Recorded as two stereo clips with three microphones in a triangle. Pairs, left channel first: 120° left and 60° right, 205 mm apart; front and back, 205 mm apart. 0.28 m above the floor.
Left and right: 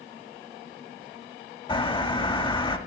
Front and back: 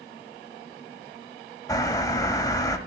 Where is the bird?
65° left, 0.9 m.